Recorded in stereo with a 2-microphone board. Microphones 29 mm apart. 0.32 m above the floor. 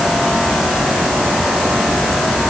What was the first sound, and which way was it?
Only background noise.